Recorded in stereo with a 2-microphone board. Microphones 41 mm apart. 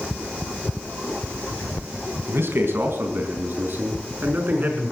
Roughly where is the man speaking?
Right.